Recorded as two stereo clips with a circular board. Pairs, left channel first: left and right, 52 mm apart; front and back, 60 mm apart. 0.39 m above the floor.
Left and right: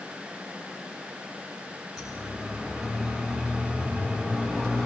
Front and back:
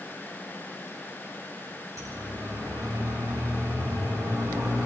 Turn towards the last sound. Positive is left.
turn(degrees=170)